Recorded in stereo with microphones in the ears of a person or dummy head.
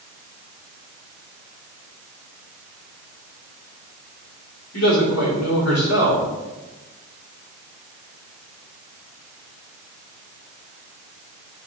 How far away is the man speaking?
About 3.5 m.